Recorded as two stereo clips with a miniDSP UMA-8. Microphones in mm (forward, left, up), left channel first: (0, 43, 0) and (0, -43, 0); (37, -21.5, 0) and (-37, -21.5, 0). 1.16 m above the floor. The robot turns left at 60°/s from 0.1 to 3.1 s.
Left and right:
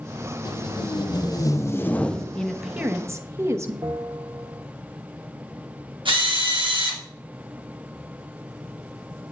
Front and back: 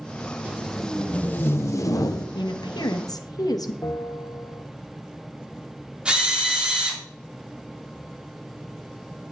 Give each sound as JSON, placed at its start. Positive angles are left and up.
{"t": 0.5, "sound": "tape being pulled", "azimuth_deg": 110, "distance_m": 0.6}
{"t": 2.4, "sound": "a woman speaking", "azimuth_deg": 10, "distance_m": 0.9}
{"t": 3.8, "sound": "a bell", "azimuth_deg": -50, "distance_m": 0.7}
{"t": 6.0, "sound": "a drill", "azimuth_deg": -105, "distance_m": 2.0}